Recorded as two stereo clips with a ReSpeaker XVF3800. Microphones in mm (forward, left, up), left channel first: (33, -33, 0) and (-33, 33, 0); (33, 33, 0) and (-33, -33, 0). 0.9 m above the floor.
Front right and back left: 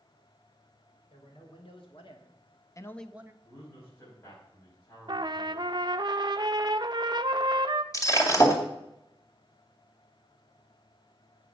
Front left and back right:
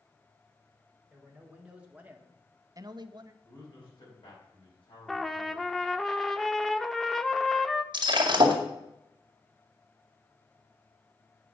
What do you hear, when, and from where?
1.1 s a man speaking: 55° right, 3 m; by 3.3 s 175° right, 0.8 m
3.4 s a man speaking: 10° left, 5.5 m
5.1 s a trumpet: 130° left, 0.6 m
7.9 s breaking glass: 100° right, 2 m